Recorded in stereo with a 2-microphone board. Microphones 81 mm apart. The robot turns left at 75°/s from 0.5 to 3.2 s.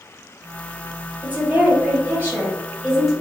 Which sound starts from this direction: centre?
A woman speaking, at 1.2 s.